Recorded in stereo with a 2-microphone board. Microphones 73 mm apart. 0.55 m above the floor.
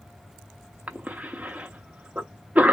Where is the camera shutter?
I don't hear a camera shutter.